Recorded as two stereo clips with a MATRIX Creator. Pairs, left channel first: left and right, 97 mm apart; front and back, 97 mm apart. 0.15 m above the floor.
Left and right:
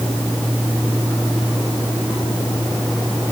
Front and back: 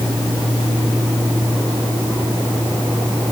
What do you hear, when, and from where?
Only background noise.